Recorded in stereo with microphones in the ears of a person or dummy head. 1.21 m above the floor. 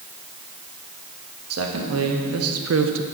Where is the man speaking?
80° right, 1.8 m; by 3.0 s 65° right (ahead or behind), 0.8 m.